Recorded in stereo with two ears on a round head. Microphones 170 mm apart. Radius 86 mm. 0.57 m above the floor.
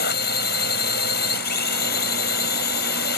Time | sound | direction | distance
0.0 | a drone | 55° left (ahead or behind) | ?